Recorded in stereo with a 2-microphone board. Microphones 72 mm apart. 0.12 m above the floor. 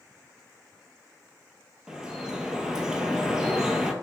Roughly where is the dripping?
Centre.